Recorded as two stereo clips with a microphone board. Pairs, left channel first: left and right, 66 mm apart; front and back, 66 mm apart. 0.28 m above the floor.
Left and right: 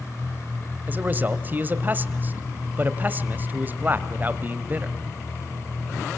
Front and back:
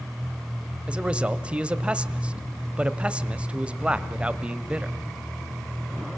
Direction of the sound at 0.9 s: 125° right.